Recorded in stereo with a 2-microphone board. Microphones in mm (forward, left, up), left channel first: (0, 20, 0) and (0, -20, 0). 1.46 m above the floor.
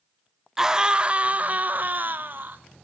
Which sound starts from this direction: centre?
A scream, at 0.6 s.